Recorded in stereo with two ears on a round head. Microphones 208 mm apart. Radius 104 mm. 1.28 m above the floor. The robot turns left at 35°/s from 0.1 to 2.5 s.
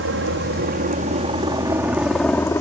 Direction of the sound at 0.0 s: 50° right (ahead or behind).